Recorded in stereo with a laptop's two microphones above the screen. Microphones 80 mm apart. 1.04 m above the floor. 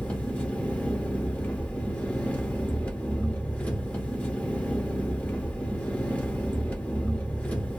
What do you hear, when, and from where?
0.0 s an engine running: 15° left (ahead or behind), 0.7 m